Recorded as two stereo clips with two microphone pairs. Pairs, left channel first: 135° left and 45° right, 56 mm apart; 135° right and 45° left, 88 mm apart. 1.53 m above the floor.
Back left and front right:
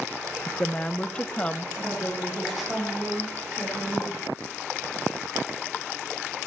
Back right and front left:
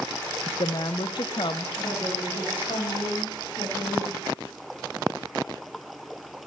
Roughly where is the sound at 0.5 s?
Behind right.